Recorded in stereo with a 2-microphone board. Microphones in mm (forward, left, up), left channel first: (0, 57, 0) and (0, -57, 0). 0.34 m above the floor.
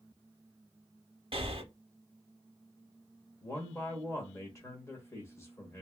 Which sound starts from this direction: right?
Breathing, at 1.3 s.